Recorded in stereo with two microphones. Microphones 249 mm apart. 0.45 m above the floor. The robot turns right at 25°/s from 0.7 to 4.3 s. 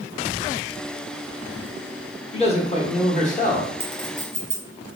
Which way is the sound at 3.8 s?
55° right (ahead or behind).